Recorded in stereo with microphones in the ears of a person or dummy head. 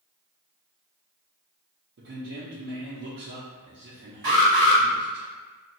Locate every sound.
2.0 s a man speaking: 60° right (ahead or behind), 0.7 m
4.2 s an alarm: 45° right (ahead or behind), 1.9 m